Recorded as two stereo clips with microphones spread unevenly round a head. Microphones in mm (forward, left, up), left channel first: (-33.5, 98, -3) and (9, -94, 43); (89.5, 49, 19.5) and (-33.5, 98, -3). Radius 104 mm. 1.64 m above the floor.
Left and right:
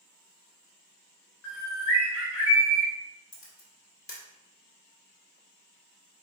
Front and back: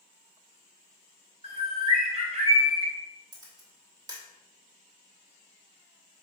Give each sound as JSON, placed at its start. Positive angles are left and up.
{"t": 1.4, "sound": "a bird", "azimuth_deg": 115, "distance_m": 1.4}
{"t": 3.3, "sound": "a camera shutter", "azimuth_deg": 125, "distance_m": 1.2}